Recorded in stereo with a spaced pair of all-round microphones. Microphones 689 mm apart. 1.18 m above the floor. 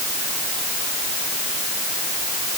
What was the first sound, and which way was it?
Only background noise.